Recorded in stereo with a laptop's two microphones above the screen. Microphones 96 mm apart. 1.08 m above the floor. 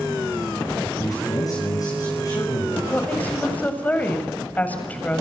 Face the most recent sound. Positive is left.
turn(degrees=15)  # may be behind; listen again after turning